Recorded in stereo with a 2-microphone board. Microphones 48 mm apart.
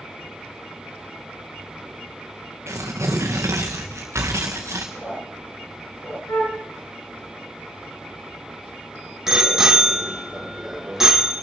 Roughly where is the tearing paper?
Right.